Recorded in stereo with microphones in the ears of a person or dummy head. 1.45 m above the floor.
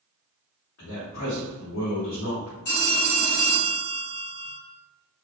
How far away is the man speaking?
About 1.5 m.